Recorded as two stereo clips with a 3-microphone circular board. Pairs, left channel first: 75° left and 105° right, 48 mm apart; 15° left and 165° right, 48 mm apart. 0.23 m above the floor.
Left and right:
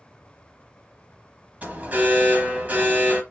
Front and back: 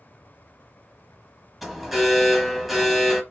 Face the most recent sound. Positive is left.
turn(degrees=-75)